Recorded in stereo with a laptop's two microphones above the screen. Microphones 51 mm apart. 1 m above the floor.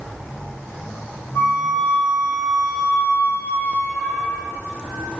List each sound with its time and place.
1.4 s a flute: 50° left (ahead or behind), 0.6 m